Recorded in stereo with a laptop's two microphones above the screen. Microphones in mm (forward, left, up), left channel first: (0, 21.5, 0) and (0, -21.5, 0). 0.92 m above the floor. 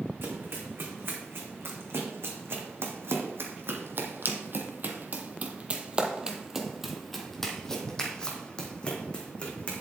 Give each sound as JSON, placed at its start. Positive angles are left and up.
{"t": 0.2, "sound": "running footsteps", "side_deg": -60, "distance_m": 3.0}